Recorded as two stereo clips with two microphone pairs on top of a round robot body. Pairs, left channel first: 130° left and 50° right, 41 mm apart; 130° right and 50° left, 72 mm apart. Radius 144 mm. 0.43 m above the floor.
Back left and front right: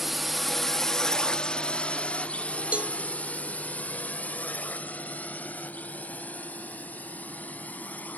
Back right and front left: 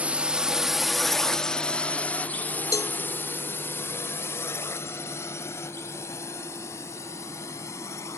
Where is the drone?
15° left; by 8.2 s straight behind.